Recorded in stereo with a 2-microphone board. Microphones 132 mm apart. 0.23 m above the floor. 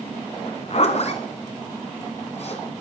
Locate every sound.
0.5 s a zipper: 55° left (ahead or behind), 1.9 m